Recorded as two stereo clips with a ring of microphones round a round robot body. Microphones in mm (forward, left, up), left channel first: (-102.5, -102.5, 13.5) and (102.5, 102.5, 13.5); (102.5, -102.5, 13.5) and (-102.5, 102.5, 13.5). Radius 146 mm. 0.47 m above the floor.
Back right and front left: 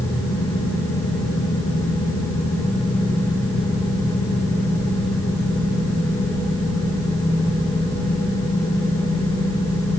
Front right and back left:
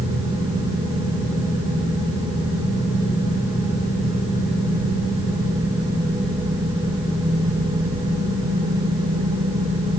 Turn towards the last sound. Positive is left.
No sound to turn to.